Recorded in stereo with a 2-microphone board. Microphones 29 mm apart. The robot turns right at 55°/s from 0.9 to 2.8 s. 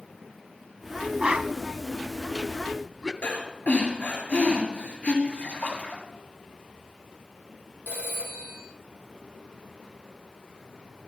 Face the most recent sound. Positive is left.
turn(degrees=-80)